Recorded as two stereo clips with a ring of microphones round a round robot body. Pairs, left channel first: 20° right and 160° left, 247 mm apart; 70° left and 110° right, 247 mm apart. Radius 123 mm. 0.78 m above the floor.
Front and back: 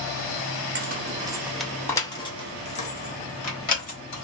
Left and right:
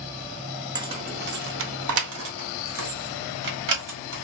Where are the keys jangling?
Straight behind, 0.6 m; by 4.2 s 75° right, 1.9 m.